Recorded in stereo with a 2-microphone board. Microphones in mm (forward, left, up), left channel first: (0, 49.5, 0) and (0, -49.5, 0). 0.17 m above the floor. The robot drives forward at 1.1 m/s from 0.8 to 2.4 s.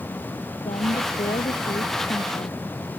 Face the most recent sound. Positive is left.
turn(degrees=75)  # may be behind; listen again after turning